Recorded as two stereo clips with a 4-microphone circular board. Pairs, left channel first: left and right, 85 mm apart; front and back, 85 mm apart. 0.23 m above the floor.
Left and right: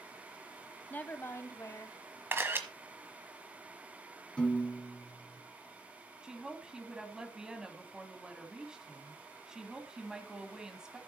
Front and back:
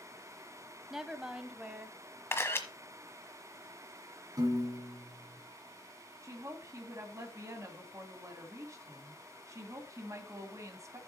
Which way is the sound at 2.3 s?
40° right.